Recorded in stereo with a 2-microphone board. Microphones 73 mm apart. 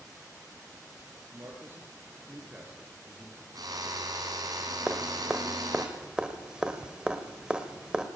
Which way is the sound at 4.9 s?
15° right (ahead or behind).